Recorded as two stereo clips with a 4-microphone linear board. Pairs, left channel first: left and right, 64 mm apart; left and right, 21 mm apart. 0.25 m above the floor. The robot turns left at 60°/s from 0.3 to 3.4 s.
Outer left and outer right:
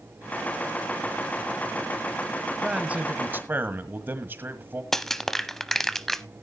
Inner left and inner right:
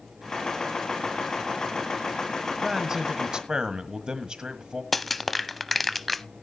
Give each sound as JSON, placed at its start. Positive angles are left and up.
{"t": 2.6, "sound": "a man speaking", "azimuth_deg": -25, "distance_m": 1.5}
{"t": 4.9, "sound": "crushing", "side_deg": 5, "distance_m": 0.6}